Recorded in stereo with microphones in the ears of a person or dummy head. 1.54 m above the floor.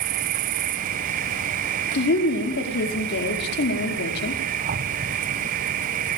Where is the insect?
40° right (ahead or behind), 0.8 m.